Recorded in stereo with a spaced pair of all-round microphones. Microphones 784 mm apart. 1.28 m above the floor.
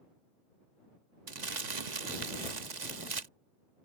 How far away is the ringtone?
No ringtone in this recording.